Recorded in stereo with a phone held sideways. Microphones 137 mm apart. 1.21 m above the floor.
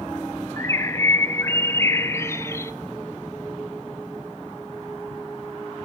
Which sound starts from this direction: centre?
A bird, at 0.6 s.